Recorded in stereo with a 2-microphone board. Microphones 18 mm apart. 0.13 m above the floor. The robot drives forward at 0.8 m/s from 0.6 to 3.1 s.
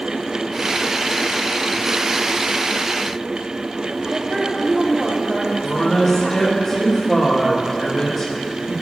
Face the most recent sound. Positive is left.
turn(degrees=40)  # may be behind; listen again after turning